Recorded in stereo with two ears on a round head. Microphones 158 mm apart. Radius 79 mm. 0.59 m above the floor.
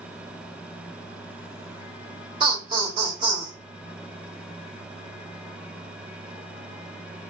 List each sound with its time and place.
2.4 s laughter: 20° right (ahead or behind), 1.6 m